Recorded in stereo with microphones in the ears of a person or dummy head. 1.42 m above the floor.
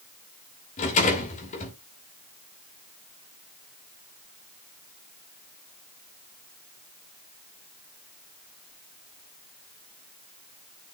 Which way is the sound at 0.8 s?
40° left (ahead or behind).